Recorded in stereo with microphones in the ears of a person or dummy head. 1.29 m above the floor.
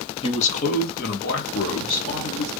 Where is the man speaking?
30° left (ahead or behind), 1.0 m; by 2.5 s 70° left (ahead or behind), 2.5 m.